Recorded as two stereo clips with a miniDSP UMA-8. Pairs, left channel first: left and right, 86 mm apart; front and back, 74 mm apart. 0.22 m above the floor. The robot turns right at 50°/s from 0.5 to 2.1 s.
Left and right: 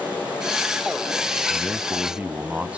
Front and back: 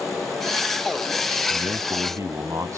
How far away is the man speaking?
About 1.4 m.